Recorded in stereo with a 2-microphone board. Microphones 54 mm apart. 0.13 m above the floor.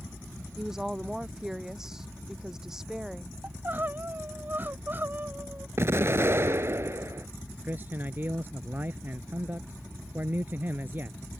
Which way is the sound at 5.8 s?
50° right (ahead or behind).